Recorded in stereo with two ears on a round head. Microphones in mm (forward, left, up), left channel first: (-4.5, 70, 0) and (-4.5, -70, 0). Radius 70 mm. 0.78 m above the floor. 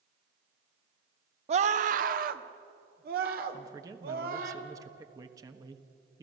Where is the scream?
40° right (ahead or behind), 0.8 m; by 4.5 s 65° right (ahead or behind), 3.5 m.